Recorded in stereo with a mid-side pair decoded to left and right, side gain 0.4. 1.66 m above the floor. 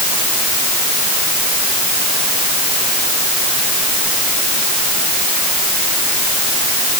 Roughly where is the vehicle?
I don't hear a vehicle.